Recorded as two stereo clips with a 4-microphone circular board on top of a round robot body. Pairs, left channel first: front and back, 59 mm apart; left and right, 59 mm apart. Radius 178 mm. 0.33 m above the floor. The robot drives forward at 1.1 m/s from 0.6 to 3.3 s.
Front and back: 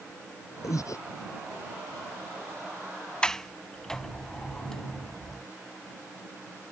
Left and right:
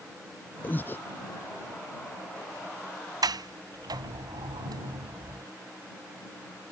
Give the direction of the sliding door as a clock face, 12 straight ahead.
2 o'clock.